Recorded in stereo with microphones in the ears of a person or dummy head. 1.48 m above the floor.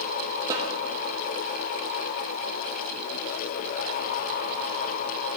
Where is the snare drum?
25° right (ahead or behind), 0.8 m.